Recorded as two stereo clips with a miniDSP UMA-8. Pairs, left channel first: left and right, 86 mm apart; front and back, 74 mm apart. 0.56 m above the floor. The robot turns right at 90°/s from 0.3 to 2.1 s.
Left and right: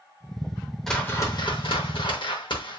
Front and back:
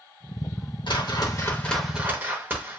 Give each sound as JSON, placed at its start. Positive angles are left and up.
{"t": 0.9, "sound": "a whoosh", "azimuth_deg": 0, "distance_m": 0.6}